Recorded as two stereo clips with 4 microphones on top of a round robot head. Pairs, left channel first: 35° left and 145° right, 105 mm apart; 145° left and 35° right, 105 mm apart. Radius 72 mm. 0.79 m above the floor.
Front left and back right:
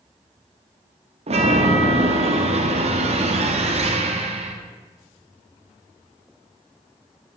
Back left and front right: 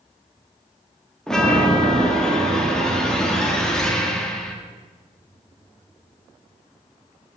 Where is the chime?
135° right, 1.3 m.